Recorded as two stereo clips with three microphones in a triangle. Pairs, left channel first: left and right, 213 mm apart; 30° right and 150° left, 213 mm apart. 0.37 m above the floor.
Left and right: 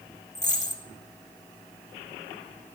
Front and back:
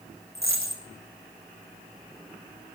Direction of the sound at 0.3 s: 145° left.